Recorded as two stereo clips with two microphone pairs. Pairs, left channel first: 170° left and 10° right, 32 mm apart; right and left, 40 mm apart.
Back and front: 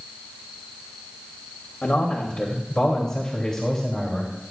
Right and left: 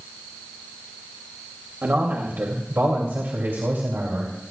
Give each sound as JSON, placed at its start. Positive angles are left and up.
{"t": 1.8, "sound": "a man speaking", "azimuth_deg": 125, "distance_m": 2.5}